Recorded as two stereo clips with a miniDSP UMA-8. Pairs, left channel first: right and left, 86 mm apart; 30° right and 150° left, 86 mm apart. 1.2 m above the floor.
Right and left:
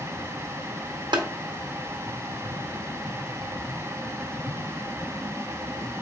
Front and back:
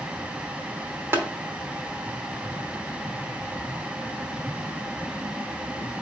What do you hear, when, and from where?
1.1 s tapping: 90° left, 1.0 m